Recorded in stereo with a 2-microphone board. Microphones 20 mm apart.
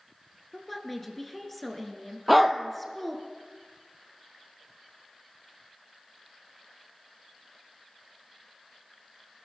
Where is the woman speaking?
10° left (ahead or behind), 1.7 m.